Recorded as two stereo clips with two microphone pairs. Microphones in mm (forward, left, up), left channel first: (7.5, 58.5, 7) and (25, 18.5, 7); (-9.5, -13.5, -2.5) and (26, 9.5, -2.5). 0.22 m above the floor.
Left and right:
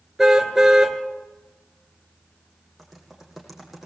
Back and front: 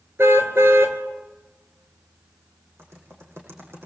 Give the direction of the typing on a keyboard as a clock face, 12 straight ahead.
11 o'clock.